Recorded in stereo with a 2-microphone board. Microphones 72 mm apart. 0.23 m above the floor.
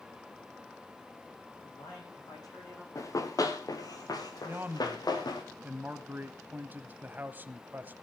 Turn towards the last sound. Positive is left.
turn(degrees=-25)  # may be behind; listen again after turning